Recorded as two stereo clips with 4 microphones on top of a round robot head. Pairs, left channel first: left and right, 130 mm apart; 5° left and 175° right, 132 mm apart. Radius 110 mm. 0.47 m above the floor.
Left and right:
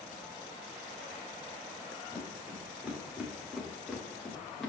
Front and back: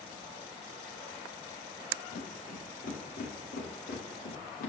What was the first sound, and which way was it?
Footsteps, 10° right.